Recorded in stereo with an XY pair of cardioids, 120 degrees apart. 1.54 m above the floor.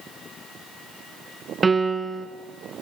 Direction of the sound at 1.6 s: 20° right.